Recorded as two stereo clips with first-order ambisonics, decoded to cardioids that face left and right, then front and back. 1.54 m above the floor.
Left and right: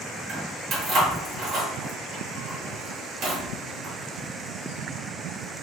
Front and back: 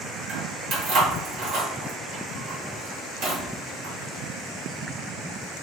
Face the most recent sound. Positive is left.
turn(degrees=-140)